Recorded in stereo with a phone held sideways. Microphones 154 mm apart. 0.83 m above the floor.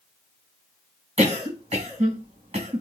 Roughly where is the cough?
Right.